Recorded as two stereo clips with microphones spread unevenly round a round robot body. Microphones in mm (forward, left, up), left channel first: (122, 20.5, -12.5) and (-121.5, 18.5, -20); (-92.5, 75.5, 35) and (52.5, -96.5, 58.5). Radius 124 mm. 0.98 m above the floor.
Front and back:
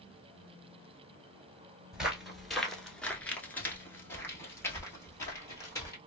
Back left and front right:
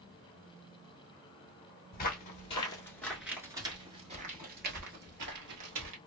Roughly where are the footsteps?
Left.